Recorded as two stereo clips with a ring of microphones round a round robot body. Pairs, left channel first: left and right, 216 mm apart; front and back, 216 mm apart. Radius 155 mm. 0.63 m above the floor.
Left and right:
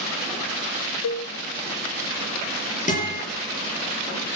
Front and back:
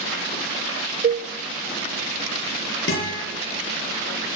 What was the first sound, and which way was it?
A cowbell, 130° left.